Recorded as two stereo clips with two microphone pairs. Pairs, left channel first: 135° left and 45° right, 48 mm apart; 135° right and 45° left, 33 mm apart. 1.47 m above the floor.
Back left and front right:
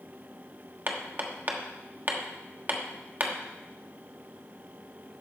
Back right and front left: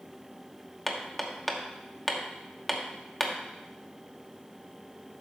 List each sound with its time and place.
0.9 s hammering: 50° right, 1.1 m